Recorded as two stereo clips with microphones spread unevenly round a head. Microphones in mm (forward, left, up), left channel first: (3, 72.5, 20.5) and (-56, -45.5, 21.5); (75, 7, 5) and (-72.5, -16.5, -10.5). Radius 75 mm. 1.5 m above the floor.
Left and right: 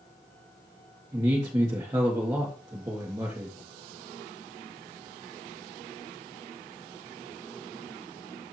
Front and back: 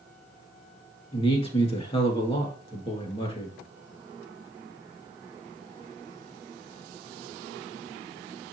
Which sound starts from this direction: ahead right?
A man speaking, at 1.1 s.